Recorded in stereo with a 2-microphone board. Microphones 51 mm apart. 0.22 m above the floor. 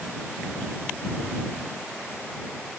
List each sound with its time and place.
Only background noise.